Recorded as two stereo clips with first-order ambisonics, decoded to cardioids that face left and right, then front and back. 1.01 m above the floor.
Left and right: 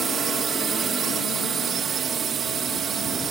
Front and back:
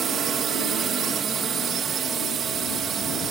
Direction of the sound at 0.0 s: 140° right.